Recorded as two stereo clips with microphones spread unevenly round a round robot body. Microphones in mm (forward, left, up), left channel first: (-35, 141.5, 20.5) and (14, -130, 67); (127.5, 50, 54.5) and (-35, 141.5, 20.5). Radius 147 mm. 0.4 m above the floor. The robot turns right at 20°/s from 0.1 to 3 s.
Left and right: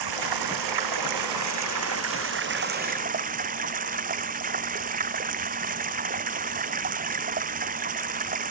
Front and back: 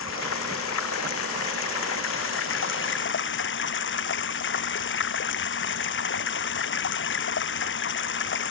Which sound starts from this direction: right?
Running water, at 0.0 s.